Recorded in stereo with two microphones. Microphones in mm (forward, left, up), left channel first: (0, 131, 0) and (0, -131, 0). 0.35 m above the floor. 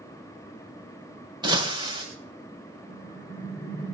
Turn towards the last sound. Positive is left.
turn(degrees=35)  # may be behind; listen again after turning